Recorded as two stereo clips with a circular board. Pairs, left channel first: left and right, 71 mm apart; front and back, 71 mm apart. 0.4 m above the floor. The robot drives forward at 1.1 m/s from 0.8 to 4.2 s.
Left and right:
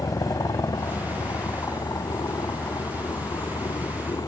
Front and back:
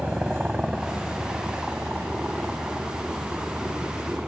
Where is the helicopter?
105° left.